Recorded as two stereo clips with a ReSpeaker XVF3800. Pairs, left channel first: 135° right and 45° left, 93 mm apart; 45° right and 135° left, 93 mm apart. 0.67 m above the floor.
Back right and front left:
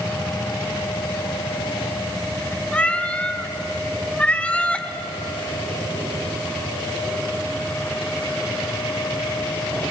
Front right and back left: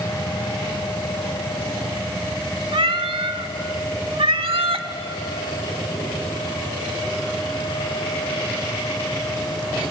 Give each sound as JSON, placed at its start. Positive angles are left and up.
{"t": 2.7, "sound": "a cat meowing", "azimuth_deg": 150, "distance_m": 1.1}